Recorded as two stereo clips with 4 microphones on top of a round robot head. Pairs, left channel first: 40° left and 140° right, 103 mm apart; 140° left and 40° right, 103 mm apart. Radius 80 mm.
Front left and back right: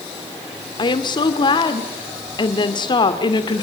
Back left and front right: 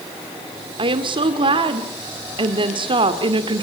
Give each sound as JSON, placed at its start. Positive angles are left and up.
{"t": 0.8, "sound": "a woman speaking", "azimuth_deg": -5, "distance_m": 2.0}